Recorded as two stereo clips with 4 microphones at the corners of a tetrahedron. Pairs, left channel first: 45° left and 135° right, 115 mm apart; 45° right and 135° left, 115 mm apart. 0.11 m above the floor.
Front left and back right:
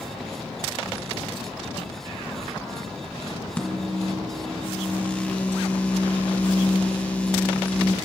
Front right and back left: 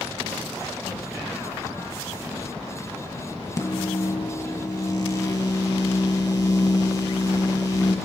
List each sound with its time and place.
3.6 s a microwave: 25° right, 1.5 m